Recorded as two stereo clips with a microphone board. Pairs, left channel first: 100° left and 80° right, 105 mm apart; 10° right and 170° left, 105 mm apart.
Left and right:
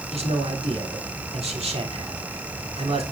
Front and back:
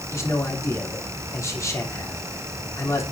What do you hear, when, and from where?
0.1 s a man speaking: 70° right, 3.5 m